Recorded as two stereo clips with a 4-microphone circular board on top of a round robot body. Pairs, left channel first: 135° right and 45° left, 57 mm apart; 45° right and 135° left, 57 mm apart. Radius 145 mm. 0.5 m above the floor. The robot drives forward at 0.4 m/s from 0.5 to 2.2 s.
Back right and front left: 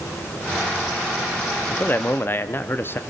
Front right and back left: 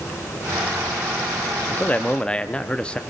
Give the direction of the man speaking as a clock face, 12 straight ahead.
3 o'clock.